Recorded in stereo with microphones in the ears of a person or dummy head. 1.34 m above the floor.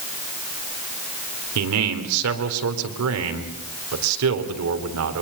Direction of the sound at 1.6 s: 85° right.